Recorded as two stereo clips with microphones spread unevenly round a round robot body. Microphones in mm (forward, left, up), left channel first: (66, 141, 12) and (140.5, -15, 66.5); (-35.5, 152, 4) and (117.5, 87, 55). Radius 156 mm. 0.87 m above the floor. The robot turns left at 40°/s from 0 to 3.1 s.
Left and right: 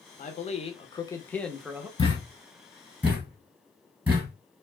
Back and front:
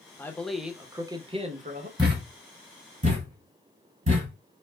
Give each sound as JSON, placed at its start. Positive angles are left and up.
{"t": 0.2, "sound": "a man speaking", "azimuth_deg": 90, "distance_m": 0.8}
{"t": 2.0, "sound": "a thud", "azimuth_deg": 50, "distance_m": 1.6}